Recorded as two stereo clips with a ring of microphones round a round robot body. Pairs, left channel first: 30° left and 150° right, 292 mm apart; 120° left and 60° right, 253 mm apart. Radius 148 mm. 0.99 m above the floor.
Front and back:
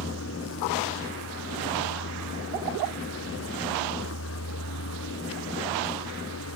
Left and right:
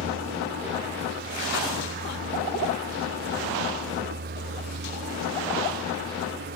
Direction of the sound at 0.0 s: 15° right.